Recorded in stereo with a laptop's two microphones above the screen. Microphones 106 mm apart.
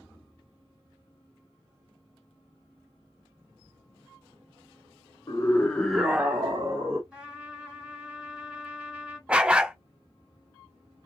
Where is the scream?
35° left (ahead or behind), 0.8 m; by 7.0 s 35° right (ahead or behind), 1.2 m.